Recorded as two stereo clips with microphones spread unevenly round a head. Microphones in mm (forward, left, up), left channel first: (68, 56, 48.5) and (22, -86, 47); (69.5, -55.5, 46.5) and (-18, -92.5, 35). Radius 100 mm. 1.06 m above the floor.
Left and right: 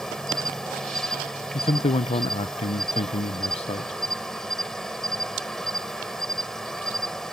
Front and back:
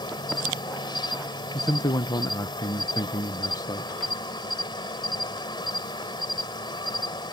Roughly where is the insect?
Ahead.